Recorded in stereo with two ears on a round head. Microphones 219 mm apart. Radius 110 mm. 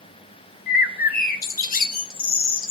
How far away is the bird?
About 1.1 m.